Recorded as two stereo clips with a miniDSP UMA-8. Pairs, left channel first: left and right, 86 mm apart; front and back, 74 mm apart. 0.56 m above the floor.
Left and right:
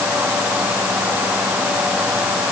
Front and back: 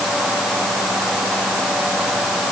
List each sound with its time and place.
Only background noise.